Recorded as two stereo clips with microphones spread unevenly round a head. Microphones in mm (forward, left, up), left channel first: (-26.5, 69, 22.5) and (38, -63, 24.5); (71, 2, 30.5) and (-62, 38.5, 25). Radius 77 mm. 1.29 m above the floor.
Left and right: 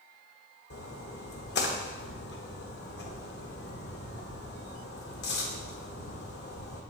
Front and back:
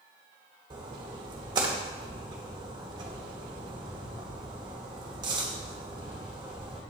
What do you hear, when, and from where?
0.7 s a splash: 105° left, 1.1 m